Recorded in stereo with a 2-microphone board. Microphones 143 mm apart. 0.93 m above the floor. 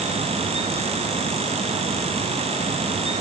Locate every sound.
Only background noise.